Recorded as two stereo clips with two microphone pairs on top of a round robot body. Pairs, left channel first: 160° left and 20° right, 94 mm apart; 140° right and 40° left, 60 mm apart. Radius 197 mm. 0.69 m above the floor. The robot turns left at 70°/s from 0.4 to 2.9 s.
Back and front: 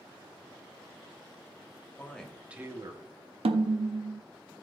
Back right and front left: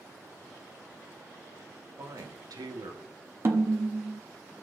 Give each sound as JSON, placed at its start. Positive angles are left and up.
{"t": 2.0, "sound": "a man speaking", "azimuth_deg": 90, "distance_m": 1.4}
{"t": 3.5, "sound": "a snare drum", "azimuth_deg": -10, "distance_m": 0.8}